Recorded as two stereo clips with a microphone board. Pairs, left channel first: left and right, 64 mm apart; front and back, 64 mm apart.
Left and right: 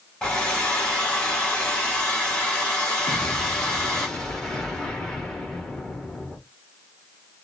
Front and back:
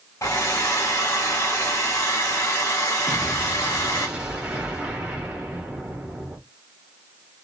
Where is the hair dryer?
15° left, 1.4 m.